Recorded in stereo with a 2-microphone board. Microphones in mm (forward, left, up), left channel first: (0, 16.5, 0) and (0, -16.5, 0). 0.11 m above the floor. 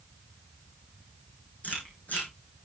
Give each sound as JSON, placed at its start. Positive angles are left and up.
{"t": 1.6, "sound": "chewing", "side_deg": 55, "distance_m": 5.5}